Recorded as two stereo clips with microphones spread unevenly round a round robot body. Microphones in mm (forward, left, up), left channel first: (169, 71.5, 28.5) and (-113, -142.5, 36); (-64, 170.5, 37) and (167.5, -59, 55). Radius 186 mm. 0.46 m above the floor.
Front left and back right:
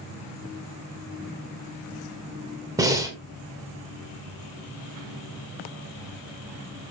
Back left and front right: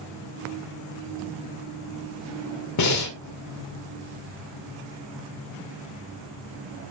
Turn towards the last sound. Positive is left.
turn(degrees=135)